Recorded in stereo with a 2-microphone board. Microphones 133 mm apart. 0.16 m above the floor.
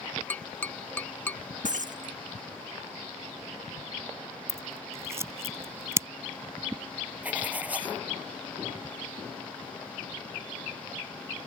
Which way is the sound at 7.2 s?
10° right (ahead or behind).